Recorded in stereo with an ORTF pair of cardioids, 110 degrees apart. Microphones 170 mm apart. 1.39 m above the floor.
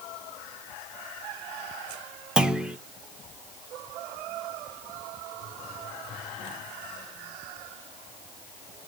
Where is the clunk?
5° right, 1.3 m.